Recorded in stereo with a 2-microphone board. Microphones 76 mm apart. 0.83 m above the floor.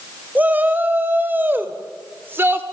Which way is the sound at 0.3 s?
25° right (ahead or behind).